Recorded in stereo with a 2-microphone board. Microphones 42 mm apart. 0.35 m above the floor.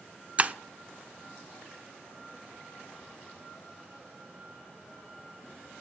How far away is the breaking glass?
About 0.5 m.